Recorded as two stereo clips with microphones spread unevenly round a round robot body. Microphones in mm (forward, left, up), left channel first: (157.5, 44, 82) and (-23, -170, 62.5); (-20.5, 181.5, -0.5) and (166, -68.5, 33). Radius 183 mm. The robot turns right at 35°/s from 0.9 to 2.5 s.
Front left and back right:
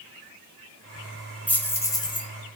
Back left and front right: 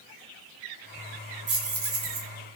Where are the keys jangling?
40° right, 0.6 m; by 2.3 s 10° right, 0.6 m.